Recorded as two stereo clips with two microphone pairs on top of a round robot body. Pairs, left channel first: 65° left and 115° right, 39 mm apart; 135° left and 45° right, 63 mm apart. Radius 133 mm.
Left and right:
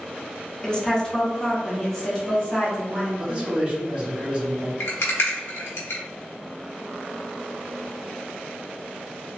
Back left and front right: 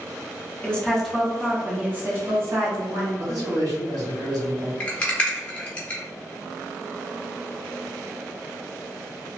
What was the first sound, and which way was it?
A woman speaking, 115° left.